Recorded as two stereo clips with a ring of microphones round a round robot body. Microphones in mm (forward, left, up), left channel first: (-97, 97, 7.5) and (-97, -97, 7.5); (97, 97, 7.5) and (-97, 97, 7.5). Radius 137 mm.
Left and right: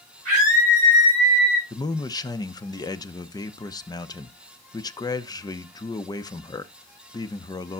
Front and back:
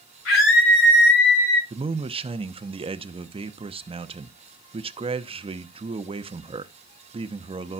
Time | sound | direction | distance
0.2 | a scream | 25° right | 6.5 m
1.7 | a man speaking | 145° left | 0.8 m